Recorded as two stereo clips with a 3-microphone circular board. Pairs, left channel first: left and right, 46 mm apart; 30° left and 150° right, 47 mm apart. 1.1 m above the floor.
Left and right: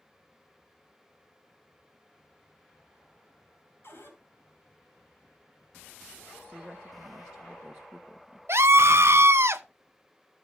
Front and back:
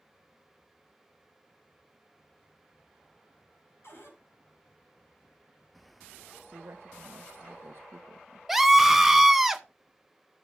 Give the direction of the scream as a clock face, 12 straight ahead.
2 o'clock.